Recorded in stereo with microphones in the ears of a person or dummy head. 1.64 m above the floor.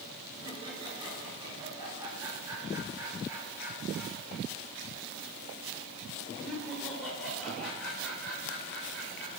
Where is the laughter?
30° right (ahead or behind), 5.5 m; by 9.3 s 10° left (ahead or behind), 8 m.